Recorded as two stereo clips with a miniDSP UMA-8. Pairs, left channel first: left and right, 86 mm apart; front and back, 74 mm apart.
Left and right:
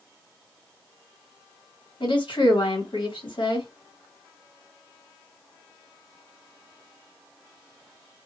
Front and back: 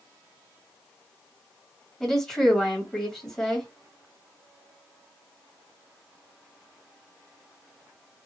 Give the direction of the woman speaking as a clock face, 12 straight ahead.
9 o'clock.